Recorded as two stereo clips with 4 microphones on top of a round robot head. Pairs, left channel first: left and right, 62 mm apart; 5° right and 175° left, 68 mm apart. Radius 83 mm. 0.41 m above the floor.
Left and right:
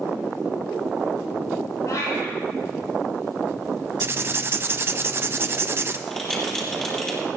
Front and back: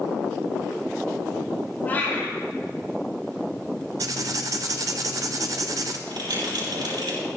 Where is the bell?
170° left, 7.5 m.